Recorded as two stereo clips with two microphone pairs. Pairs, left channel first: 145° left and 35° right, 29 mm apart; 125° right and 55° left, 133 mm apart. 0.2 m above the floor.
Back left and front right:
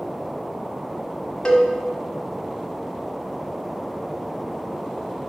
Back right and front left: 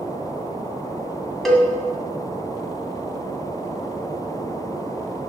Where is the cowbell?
150° left, 1.6 m.